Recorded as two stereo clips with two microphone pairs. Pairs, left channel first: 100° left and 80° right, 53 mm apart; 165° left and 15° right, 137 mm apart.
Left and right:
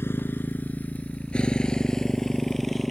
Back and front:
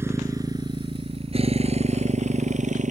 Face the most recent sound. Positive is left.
turn(degrees=10)